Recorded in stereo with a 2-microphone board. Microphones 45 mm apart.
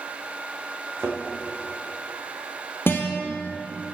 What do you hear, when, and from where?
1.0 s a thud: 70° right (ahead or behind), 4.5 m
2.9 s a guitar: 60° left (ahead or behind), 2 m